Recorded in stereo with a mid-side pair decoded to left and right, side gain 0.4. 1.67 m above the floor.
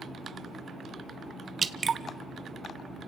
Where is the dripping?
40° right, 1.0 m.